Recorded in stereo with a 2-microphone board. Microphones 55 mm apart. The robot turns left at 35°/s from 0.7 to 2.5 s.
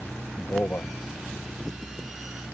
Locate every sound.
0.4 s a man speaking: 45° left (ahead or behind); by 0.9 s 55° left (ahead or behind)